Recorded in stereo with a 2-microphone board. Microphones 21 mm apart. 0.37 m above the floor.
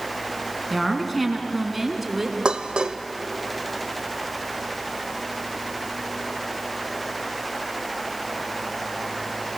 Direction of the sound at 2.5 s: 45° right (ahead or behind).